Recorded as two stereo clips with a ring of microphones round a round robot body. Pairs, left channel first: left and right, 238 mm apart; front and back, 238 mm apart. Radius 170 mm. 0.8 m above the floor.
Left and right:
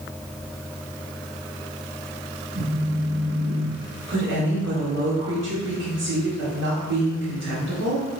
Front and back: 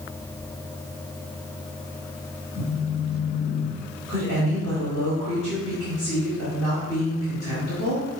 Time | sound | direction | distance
2.5 | a phone buzzing | 70° right | 2.5 m
4.1 | a woman speaking | 80° right | 2.5 m